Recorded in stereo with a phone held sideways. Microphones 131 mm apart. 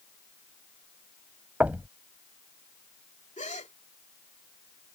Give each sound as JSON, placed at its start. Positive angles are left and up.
{"t": 1.6, "sound": "knocking", "side_deg": -10}
{"t": 3.4, "sound": "a gasp", "side_deg": 65}